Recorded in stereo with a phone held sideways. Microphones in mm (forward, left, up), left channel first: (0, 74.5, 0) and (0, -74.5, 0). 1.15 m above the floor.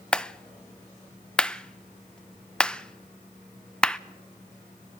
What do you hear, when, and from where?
0.1 s a clap: 5° left (ahead or behind), 0.5 m